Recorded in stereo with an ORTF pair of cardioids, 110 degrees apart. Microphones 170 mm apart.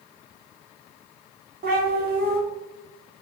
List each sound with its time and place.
1.6 s a cat meowing: 60° right, 1.4 m